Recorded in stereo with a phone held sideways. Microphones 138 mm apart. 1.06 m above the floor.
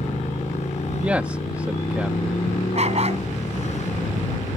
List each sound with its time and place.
0.0 s a motorcycle: 55° left (ahead or behind)
1.0 s a man speaking: 10° right (ahead or behind)
2.7 s a dog barking: 50° right (ahead or behind)